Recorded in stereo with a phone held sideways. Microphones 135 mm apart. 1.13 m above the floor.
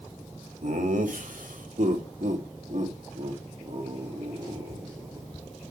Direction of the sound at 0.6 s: 75° right (ahead or behind).